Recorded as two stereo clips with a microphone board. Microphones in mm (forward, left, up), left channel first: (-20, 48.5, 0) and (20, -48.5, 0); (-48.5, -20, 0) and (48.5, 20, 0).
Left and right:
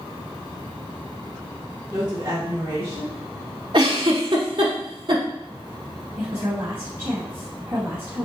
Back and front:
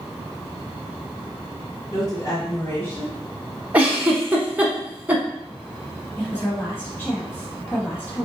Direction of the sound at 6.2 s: 100° right.